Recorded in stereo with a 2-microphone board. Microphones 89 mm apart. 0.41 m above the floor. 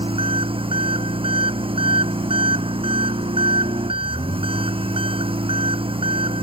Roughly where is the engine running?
Right.